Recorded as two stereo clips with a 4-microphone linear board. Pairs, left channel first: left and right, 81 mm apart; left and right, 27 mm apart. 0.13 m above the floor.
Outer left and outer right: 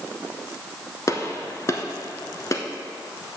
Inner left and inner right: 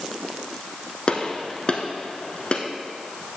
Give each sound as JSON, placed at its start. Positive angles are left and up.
{"t": 1.1, "sound": "a gunshot", "side_deg": 40, "distance_m": 0.9}